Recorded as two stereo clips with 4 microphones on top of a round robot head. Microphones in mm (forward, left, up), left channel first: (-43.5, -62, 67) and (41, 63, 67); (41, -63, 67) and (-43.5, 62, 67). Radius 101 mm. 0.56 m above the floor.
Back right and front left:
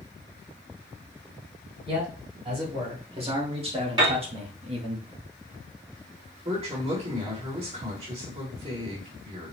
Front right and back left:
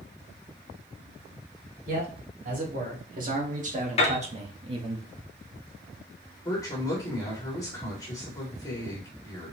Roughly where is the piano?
Ahead.